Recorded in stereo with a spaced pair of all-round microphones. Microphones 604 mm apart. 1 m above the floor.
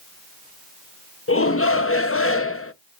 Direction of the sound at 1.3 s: 25° left (ahead or behind).